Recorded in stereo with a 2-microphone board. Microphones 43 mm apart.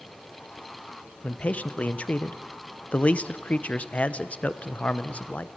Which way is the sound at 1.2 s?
30° left (ahead or behind).